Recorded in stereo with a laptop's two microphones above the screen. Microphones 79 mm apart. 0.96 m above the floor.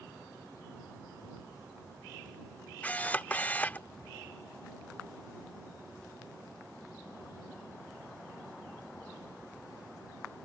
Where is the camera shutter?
20° left (ahead or behind).